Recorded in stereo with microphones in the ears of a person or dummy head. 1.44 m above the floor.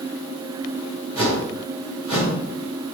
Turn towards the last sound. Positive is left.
turn(degrees=-25)  # may be behind; listen again after turning